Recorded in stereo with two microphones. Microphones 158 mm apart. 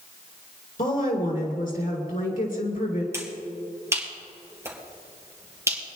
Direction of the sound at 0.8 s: 65° left (ahead or behind).